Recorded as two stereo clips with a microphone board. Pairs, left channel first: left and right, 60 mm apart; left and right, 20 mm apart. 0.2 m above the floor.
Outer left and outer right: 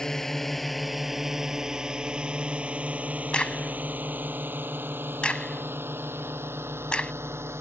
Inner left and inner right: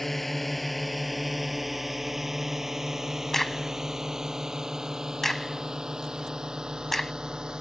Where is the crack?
15° left (ahead or behind).